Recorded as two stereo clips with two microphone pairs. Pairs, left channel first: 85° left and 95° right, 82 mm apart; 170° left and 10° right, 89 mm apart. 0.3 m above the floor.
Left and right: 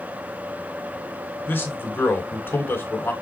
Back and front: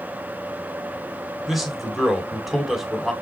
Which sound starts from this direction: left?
A man speaking, at 1.5 s.